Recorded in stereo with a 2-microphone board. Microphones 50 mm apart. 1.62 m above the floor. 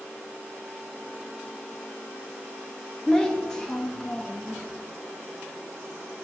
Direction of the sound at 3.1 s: 10° left (ahead or behind).